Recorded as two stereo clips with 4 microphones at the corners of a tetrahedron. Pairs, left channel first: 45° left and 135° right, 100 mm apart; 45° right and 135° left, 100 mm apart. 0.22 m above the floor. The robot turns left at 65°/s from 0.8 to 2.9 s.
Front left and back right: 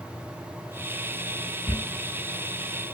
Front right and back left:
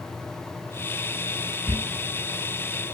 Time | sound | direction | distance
1.7 | a squeak | 90° left | 0.5 m